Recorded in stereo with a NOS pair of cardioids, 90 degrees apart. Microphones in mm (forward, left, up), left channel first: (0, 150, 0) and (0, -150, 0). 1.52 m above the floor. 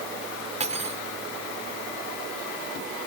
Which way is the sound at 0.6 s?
25° right.